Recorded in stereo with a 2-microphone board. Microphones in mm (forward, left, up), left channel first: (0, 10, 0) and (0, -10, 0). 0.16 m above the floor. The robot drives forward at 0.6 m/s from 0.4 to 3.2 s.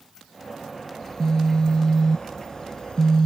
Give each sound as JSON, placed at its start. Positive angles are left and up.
{"t": 1.0, "sound": "a phone buzzing", "side_deg": 30}